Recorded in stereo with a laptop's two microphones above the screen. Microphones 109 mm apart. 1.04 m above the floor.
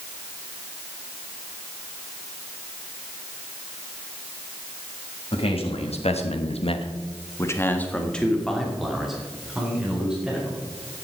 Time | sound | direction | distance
5.3 | a man speaking | 60° left (ahead or behind) | 1.9 m